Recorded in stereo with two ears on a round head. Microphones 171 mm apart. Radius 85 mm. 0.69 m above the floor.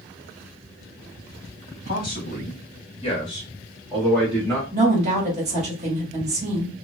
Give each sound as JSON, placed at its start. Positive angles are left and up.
{"t": 1.8, "sound": "a man speaking", "side_deg": 50, "distance_m": 1.5}
{"t": 4.7, "sound": "a woman speaking", "side_deg": -35, "distance_m": 1.7}